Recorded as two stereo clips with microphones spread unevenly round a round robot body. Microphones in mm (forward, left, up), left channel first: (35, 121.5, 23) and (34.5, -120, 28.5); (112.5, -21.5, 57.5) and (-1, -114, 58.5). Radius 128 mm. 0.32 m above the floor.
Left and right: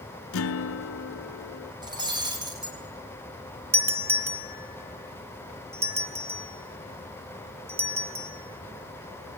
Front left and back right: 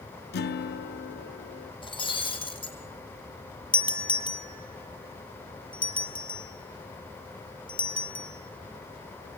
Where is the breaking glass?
15° right, 7.5 m.